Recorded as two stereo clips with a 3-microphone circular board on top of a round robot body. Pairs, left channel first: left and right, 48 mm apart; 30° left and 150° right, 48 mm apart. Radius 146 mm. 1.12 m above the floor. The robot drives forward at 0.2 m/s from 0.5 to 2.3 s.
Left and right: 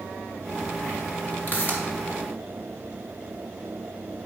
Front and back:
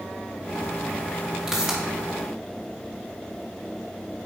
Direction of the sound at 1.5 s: 135° left.